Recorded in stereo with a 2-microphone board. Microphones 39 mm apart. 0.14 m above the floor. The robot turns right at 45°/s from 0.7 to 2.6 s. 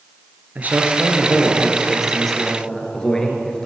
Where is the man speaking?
65° right, 2.5 m; by 3.7 s 20° left, 2.5 m.